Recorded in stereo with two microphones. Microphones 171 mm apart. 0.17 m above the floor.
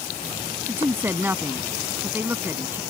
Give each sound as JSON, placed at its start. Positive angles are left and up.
{"t": 0.7, "sound": "a woman speaking", "side_deg": -15}